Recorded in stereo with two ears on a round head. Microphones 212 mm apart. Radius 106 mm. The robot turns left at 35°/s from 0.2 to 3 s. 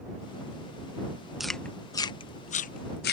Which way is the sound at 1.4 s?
Centre (ahead or behind).